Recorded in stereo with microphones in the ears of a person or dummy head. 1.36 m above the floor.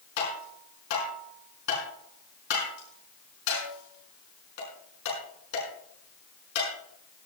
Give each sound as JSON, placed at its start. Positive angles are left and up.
{"t": 0.2, "sound": "tapping", "side_deg": 60, "distance_m": 5.5}